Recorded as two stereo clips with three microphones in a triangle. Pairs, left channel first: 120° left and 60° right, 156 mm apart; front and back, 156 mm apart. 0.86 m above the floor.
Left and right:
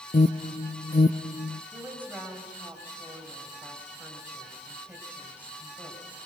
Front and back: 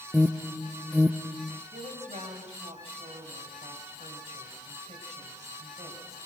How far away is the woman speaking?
About 6 m.